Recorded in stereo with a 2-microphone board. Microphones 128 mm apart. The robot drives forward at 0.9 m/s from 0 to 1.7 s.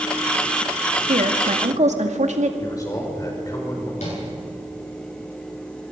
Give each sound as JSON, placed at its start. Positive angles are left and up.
{"t": 1.1, "sound": "a woman speaking", "side_deg": -80, "distance_m": 2.0}
{"t": 2.6, "sound": "a man speaking", "side_deg": 30, "distance_m": 5.5}
{"t": 4.0, "sound": "tapping", "side_deg": 65, "distance_m": 10.0}